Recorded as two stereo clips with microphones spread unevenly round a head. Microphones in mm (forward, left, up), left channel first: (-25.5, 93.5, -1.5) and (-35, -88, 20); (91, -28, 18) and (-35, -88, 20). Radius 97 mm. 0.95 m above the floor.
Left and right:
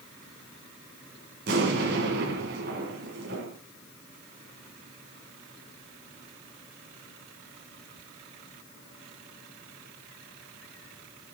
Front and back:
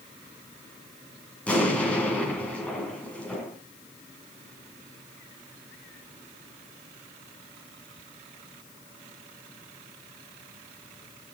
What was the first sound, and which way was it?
An explosion, 55° right.